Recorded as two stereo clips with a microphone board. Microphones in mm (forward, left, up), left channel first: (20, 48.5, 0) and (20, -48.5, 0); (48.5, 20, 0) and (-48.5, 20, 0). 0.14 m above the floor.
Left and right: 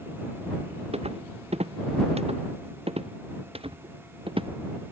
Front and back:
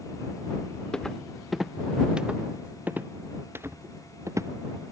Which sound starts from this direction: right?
Footsteps, at 0.9 s.